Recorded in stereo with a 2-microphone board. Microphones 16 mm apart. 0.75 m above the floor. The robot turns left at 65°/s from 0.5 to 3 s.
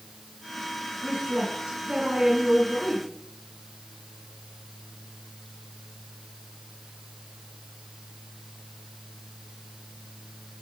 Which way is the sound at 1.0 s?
65° right.